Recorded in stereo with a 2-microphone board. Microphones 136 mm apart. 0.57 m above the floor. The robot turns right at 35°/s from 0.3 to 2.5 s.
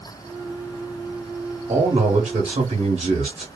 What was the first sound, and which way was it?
A man speaking, 50° right (ahead or behind).